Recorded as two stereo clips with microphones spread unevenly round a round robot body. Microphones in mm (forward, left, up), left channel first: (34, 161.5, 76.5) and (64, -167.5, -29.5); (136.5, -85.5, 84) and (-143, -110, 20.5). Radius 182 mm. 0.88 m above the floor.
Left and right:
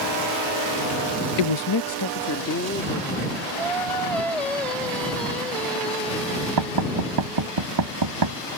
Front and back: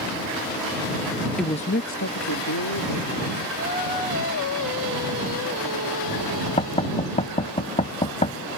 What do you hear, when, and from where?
1.4 s a woman speaking: 100° left; by 3.5 s 35° left
3.6 s singing: straight ahead
6.6 s knocking: 60° right